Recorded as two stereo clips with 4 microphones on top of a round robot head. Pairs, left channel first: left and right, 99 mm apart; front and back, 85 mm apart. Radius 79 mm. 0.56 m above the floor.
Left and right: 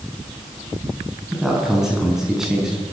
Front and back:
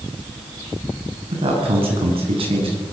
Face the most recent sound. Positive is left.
turn(degrees=-175)